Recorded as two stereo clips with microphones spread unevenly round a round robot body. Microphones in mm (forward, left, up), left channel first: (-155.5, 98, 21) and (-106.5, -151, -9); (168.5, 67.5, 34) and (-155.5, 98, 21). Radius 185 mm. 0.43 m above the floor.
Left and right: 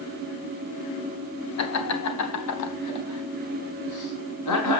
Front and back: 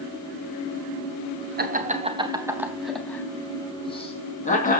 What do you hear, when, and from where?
1.6 s laughter: 115° left, 4 m; by 4.8 s 60° left, 6 m